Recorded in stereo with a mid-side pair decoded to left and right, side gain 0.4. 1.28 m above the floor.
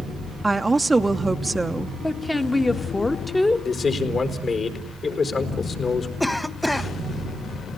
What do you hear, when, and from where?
0.4 s a woman speaking: 20° right, 1.0 m
2.0 s a woman speaking: 15° left, 1.7 m
3.6 s a man speaking: 50° left, 4.5 m
6.2 s a cough: 5° left, 1.8 m